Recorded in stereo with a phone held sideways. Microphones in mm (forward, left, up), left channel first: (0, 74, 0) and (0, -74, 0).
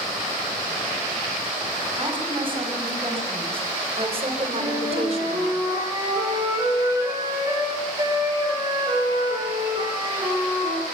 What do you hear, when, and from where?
2.0 s a woman speaking: 35° right (ahead or behind), 6 m; by 5.5 s 45° right (ahead or behind), 3 m
4.6 s a flute: 25° right (ahead or behind), 10 m